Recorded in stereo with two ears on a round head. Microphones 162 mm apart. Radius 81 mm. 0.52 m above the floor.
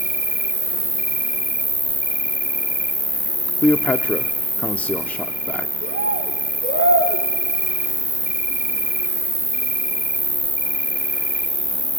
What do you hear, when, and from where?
0.0 s an insect: 10° right (ahead or behind), 1.7 m
3.6 s a man speaking: 10° left (ahead or behind), 0.8 m
5.8 s a bird: 65° right (ahead or behind), 2.5 m